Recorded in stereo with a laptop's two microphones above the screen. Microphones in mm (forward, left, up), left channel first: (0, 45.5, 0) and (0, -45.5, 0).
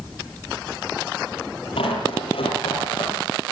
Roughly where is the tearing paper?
Left.